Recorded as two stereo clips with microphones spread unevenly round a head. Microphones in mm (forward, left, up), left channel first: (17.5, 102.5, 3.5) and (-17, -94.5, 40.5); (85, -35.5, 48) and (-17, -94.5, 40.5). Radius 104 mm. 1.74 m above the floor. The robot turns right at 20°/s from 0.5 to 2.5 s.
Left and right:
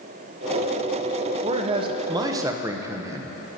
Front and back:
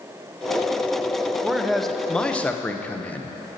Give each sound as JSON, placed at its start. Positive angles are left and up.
{"t": 1.4, "sound": "a man speaking", "azimuth_deg": -60, "distance_m": 0.8}